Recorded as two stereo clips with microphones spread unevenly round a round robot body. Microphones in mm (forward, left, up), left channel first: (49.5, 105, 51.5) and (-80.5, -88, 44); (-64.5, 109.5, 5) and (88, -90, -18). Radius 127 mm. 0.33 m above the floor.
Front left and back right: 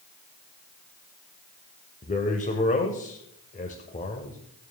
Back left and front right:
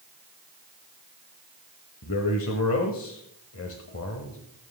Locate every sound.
2.0 s a man speaking: 105° left, 1.7 m